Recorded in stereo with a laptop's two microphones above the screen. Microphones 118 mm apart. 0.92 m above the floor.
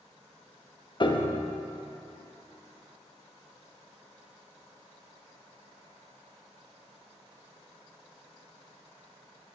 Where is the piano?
40° left (ahead or behind), 0.7 m.